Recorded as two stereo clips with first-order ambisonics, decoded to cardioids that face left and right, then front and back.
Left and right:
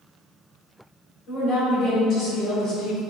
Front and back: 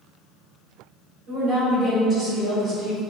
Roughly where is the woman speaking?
Behind left.